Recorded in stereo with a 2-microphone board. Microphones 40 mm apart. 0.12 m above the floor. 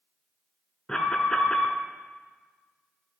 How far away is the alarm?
About 0.8 m.